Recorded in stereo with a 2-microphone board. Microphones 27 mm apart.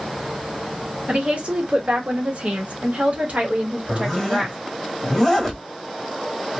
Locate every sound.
1.1 s a woman speaking: 45° right (ahead or behind), 1.5 m
3.9 s a zipper: 5° left (ahead or behind), 1.6 m